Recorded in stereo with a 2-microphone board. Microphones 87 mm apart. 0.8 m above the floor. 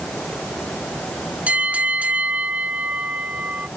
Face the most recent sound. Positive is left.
turn(degrees=-15)  # may be behind; listen again after turning